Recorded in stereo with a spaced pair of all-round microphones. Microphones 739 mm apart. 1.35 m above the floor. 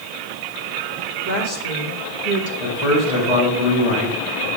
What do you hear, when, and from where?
1.2 s a woman speaking: 80° left, 3 m
2.6 s a man speaking: 60° left (ahead or behind), 4.5 m